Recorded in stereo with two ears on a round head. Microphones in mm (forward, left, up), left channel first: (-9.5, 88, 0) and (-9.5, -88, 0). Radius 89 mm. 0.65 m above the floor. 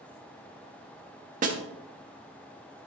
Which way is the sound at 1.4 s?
40° right (ahead or behind).